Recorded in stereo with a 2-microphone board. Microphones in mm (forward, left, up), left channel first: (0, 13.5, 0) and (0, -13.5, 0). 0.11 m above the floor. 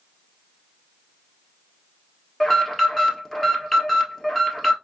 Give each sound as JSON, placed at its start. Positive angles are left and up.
{"t": 2.4, "sound": "an alarm", "side_deg": 10, "distance_m": 1.5}